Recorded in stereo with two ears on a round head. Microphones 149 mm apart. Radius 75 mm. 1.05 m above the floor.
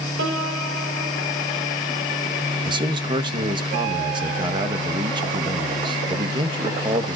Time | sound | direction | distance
0.2 | a piano | 85° right | 3.5 m
2.6 | a man speaking | 30° right (ahead or behind) | 1.2 m